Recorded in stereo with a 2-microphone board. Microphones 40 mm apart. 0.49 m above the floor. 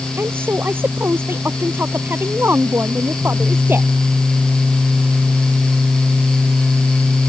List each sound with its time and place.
0.2 s a woman speaking: 60° right (ahead or behind)